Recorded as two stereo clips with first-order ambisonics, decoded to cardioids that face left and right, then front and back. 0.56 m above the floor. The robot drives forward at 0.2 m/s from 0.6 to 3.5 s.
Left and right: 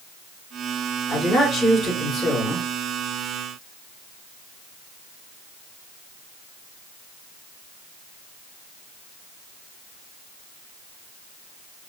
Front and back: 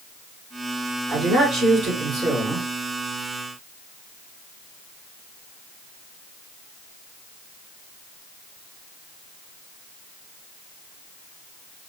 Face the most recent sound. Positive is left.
turn(degrees=155)